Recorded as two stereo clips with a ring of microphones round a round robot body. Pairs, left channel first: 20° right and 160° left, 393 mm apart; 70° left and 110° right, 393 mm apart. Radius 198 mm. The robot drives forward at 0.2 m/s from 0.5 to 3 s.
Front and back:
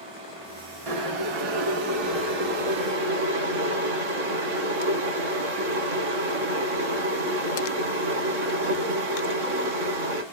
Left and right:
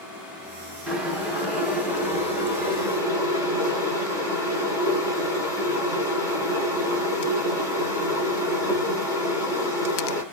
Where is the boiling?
160° left, 1.4 m; by 10.2 s 165° left, 1.8 m.